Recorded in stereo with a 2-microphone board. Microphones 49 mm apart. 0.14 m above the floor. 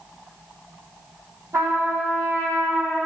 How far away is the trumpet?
About 2 m.